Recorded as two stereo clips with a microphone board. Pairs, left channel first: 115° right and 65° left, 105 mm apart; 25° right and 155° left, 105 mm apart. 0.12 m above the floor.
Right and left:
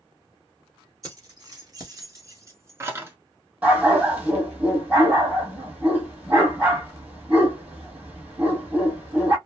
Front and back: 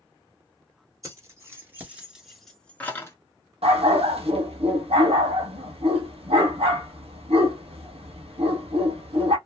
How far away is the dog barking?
About 1.0 m.